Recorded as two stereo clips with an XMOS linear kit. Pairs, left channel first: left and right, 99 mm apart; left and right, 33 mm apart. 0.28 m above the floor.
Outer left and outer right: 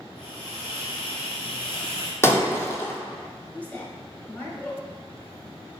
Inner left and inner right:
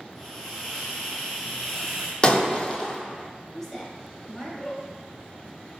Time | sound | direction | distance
0.1 | a hiss | 10° left (ahead or behind) | 1.9 m
2.2 | breaking glass | 25° left (ahead or behind) | 0.6 m
3.5 | a woman speaking | 15° left (ahead or behind) | 1.0 m